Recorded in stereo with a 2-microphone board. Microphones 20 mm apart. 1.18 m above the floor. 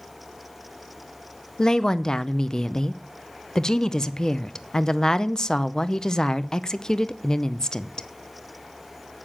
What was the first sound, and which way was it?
A woman speaking, 30° left (ahead or behind).